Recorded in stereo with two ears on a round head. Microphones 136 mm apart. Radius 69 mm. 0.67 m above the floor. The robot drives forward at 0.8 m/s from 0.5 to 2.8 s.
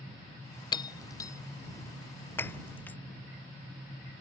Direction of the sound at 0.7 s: 30° left (ahead or behind).